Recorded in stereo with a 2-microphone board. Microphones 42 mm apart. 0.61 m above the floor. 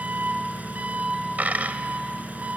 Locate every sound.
0.0 s an engine running: 35° right (ahead or behind), 2.0 m
1.4 s a dropped coin: 40° right (ahead or behind), 1.4 m